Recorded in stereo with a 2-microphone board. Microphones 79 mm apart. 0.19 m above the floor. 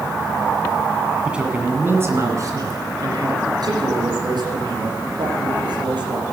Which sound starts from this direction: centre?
A man speaking, at 1.2 s.